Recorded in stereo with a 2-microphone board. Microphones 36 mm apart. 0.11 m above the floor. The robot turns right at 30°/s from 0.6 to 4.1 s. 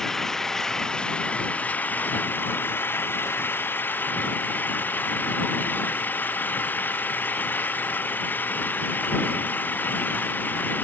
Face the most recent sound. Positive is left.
turn(degrees=120)